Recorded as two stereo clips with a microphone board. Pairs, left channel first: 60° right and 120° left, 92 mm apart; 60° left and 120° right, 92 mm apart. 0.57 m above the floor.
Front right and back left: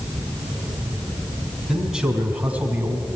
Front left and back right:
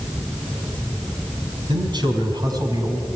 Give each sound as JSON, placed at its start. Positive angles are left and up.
{"t": 1.7, "sound": "a man speaking", "azimuth_deg": -155, "distance_m": 4.5}